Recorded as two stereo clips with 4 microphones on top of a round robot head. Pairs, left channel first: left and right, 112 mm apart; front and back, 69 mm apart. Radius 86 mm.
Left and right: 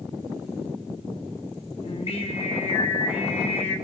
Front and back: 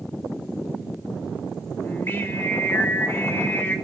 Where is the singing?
60° left, 3 m.